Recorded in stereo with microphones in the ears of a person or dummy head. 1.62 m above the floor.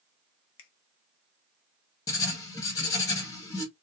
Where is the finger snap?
70° left (ahead or behind), 0.6 m.